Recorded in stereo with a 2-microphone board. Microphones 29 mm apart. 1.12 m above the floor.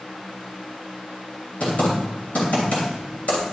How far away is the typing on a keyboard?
About 3 m.